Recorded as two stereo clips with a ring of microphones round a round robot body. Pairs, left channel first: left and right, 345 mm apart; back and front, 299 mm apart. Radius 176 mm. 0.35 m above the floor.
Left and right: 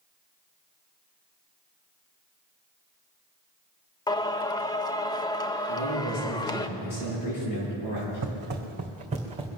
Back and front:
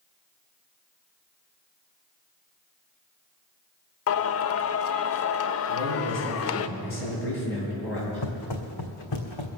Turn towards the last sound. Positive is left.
turn(degrees=-165)